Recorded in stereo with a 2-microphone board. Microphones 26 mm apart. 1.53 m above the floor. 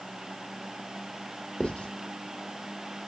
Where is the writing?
60° left (ahead or behind), 2 m.